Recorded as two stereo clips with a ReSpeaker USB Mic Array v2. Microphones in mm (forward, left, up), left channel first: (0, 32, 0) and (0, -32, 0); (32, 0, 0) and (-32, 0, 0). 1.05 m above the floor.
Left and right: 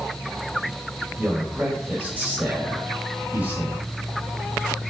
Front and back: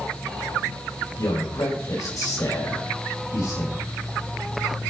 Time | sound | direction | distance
1.2 | a man speaking | 25° right | 5.5 m